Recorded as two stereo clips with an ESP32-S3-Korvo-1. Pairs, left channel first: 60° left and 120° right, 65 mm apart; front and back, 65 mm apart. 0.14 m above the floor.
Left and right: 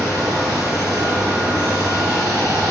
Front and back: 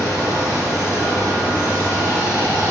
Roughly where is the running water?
Behind right.